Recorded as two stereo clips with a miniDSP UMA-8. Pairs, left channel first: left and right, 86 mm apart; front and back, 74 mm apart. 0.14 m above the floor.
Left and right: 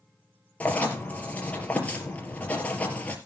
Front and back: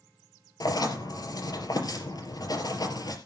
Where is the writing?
20° left, 3 m.